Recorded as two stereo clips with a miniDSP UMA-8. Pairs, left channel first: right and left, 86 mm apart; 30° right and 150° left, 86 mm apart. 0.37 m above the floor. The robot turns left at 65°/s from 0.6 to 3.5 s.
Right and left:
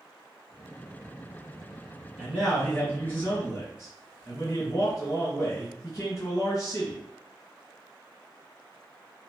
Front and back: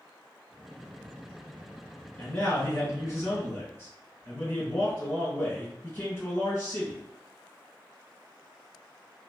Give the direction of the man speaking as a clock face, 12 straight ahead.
11 o'clock.